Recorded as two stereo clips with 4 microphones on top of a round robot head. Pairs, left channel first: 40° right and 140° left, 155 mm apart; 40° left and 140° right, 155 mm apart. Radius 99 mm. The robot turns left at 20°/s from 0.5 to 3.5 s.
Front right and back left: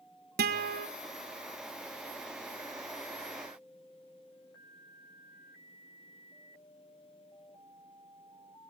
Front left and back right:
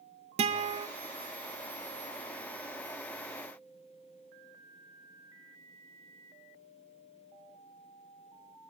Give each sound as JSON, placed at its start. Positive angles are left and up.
{"t": 0.4, "sound": "a guitar", "azimuth_deg": 165, "distance_m": 1.9}